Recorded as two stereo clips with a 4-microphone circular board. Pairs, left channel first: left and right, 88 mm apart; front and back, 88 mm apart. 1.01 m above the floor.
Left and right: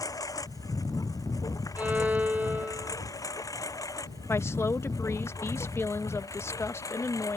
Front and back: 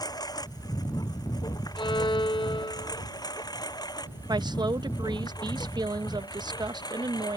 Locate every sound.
0.0 s a lawn mower: 40° left
1.8 s a violin: 20° right
4.3 s a woman speaking: 145° left